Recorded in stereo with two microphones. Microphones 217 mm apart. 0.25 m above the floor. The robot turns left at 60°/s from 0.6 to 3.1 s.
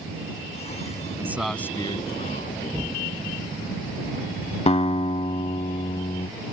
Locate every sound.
1.2 s a man speaking: 165° right; by 2.6 s 110° left
2.7 s an explosion: 20° right (ahead or behind); by 4.6 s 5° left (ahead or behind)
4.7 s a guitar: 30° left (ahead or behind)